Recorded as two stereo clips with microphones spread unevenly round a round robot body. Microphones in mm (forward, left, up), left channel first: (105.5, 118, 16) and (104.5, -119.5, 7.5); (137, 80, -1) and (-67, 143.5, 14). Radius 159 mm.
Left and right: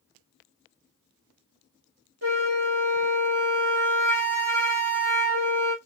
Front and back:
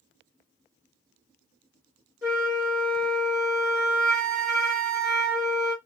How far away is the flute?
About 1.2 m.